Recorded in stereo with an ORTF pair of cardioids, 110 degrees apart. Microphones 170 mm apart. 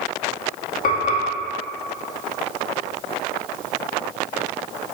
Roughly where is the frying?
Ahead left.